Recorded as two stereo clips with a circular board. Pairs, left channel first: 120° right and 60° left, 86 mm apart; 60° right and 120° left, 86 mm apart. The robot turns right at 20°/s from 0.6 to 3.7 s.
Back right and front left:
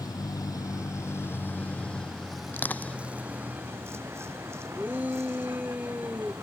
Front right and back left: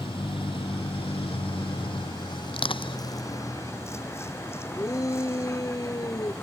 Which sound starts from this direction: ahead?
A shout, at 4.8 s.